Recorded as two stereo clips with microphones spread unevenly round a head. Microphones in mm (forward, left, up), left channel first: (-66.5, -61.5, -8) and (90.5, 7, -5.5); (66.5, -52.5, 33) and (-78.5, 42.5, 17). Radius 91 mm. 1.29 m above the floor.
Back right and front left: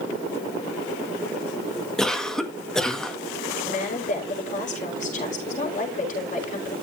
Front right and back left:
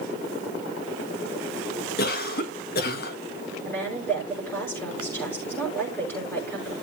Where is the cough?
70° right, 1.8 m.